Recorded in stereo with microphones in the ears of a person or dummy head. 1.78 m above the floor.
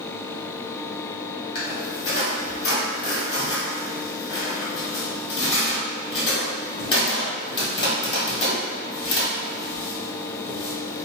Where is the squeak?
30° left (ahead or behind), 1.4 m.